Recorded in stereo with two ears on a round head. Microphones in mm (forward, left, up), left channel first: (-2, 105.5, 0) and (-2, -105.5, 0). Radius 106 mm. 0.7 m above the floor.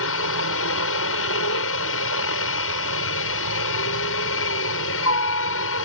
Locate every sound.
0.0 s a helicopter: 60° left (ahead or behind)